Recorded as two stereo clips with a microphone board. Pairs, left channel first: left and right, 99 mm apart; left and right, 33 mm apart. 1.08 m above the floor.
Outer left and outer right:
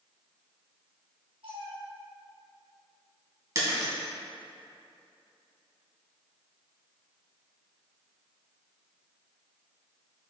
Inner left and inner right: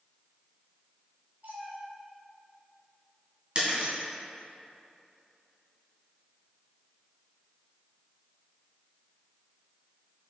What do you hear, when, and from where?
1.4 s a cat meowing: 70° right (ahead or behind), 2 m
3.5 s breaking glass: 35° right (ahead or behind), 2.5 m